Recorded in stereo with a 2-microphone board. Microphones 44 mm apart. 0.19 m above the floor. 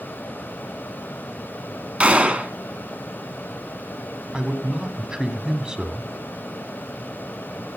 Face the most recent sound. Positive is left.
turn(degrees=-20)  # may be behind; listen again after turning